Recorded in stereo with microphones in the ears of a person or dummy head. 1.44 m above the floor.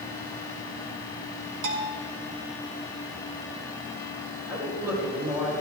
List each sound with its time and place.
1.6 s a bell: 85° right, 2.5 m
4.5 s a man speaking: 15° right (ahead or behind), 4.5 m